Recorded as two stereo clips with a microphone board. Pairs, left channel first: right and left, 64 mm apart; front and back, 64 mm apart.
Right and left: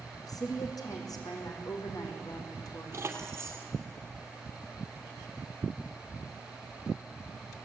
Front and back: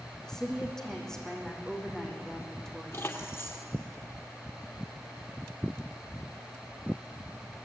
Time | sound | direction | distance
0.2 | a woman speaking | 80° right | 5 m
2.9 | keys jangling | 45° left | 2.5 m